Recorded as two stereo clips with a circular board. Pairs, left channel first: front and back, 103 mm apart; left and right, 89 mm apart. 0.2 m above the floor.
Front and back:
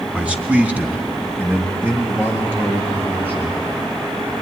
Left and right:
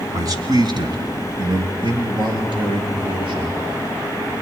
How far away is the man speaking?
About 1.7 m.